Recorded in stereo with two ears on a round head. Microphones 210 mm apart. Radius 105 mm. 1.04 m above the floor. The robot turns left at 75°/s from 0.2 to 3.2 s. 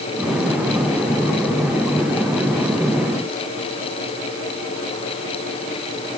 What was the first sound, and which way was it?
Only background noise.